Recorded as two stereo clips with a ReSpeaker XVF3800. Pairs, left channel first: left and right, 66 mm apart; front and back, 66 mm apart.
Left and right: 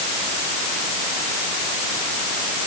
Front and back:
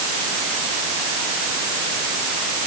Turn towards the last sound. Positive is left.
No sound to turn to.